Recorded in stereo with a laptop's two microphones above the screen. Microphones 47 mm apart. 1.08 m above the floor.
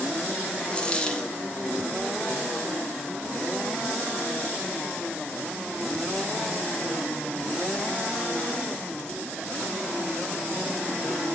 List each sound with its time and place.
0.7 s a dropped coin: 20° left (ahead or behind), 0.6 m